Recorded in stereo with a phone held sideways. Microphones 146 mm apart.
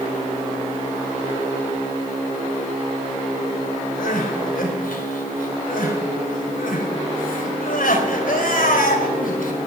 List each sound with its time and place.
4.0 s crying: 75° left (ahead or behind), 2.5 m